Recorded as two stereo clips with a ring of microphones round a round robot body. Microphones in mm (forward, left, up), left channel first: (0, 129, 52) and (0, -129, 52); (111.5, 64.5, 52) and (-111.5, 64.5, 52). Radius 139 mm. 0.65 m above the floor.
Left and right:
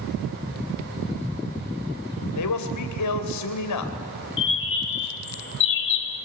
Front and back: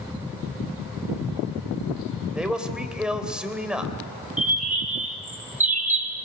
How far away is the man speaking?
About 3 m.